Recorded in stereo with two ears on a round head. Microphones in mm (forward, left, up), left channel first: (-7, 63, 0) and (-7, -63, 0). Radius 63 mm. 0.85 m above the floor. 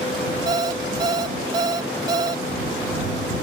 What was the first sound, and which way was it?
An alarm clock, 30° right (ahead or behind).